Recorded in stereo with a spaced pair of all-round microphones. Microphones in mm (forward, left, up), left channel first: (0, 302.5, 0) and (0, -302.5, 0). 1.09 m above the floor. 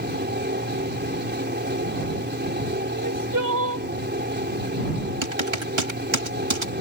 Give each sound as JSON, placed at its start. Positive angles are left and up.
{"t": 0.0, "sound": "a fan", "side_deg": -15}
{"t": 2.9, "sound": "crying", "side_deg": -30}
{"t": 5.2, "sound": "typing on a keyboard", "side_deg": -50}